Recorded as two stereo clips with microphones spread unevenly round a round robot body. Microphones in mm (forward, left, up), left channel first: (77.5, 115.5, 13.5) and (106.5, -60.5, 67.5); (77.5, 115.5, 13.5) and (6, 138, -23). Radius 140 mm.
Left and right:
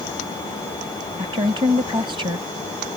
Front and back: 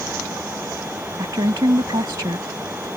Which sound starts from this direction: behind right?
A woman speaking, at 1.2 s.